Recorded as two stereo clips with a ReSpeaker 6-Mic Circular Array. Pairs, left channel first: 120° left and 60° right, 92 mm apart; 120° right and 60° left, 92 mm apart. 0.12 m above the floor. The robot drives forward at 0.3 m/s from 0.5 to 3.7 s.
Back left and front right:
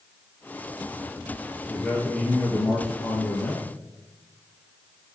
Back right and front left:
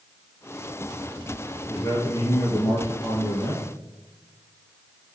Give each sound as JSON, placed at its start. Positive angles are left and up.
{"t": 1.7, "sound": "a man speaking", "azimuth_deg": -165, "distance_m": 1.6}